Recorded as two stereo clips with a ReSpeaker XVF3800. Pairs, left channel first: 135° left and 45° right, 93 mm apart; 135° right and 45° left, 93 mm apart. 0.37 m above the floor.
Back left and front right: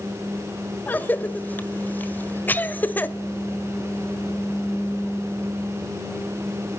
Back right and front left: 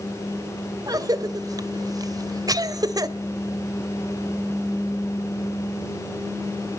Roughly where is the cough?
Left.